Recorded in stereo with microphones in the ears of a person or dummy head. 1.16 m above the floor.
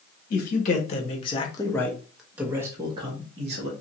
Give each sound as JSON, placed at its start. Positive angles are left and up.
{"t": 0.3, "sound": "a man speaking", "side_deg": 50, "distance_m": 1.2}